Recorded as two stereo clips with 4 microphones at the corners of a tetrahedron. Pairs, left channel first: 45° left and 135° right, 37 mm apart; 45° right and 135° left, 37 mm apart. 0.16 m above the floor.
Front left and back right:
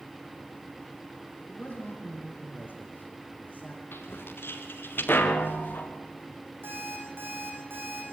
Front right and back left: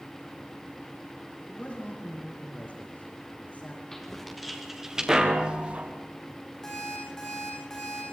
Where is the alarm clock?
120° right, 8.5 m.